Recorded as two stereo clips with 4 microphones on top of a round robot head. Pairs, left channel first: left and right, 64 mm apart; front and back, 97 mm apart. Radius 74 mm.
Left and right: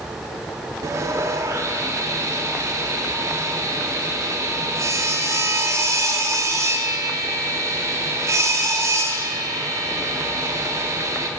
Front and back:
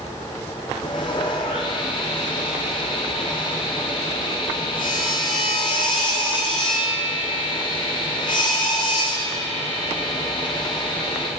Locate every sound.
0.8 s sawing: 50° right, 0.5 m